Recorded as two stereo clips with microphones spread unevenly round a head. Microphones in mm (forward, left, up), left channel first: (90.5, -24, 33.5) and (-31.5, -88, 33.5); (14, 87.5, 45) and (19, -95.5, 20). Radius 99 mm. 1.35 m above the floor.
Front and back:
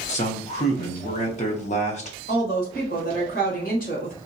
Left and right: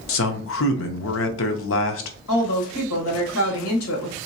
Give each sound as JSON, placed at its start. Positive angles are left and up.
{"t": 0.1, "sound": "a man speaking", "azimuth_deg": 75, "distance_m": 0.7}
{"t": 2.3, "sound": "a woman speaking", "azimuth_deg": 75, "distance_m": 1.4}